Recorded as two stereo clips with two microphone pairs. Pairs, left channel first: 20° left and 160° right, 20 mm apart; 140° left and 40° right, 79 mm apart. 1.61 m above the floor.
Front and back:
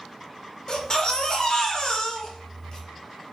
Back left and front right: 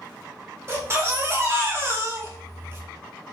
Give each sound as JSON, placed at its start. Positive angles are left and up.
{"t": 0.7, "sound": "a baby crying", "azimuth_deg": -5, "distance_m": 0.9}